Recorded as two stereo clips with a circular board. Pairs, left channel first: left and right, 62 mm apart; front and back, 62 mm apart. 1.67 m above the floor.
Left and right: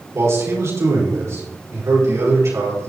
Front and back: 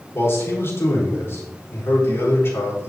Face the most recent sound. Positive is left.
turn(degrees=-45)